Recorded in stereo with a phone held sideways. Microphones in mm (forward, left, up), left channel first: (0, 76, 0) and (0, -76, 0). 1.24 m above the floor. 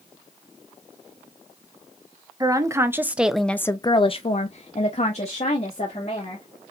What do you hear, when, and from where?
2.4 s a woman speaking: 25° right (ahead or behind), 1.0 m; by 6.5 s 45° left (ahead or behind), 1.9 m